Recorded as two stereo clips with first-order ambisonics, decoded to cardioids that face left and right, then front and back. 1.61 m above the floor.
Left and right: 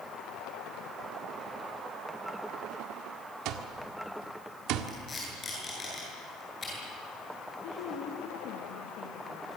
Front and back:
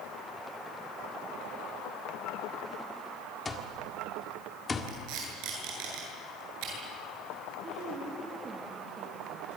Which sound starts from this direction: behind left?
A woman speaking, at 7.6 s.